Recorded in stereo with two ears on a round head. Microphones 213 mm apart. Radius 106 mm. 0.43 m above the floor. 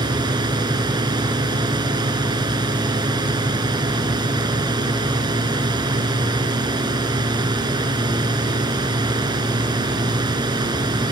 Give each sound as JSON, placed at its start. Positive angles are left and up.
{"t": 0.0, "sound": "a drone", "side_deg": -20}